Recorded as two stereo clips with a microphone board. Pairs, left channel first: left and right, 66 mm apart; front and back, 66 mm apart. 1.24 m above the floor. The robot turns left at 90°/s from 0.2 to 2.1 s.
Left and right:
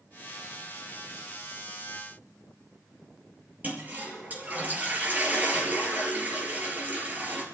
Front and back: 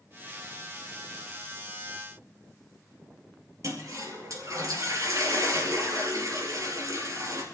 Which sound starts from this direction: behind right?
A toilet flushing, at 3.6 s.